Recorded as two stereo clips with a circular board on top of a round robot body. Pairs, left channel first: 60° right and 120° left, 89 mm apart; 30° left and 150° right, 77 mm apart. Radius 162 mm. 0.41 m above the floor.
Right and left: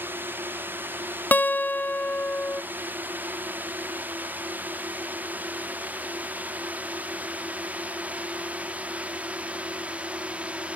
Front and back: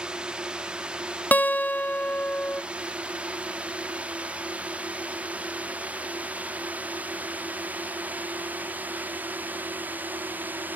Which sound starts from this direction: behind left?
A drone, at 0.0 s.